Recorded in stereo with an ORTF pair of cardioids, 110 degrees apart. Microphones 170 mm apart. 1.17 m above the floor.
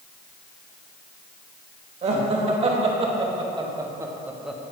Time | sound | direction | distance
2.0 | laughter | 45° right | 1.7 m